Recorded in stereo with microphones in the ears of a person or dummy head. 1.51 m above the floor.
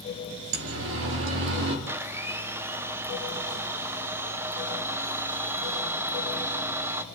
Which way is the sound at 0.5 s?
75° right (ahead or behind).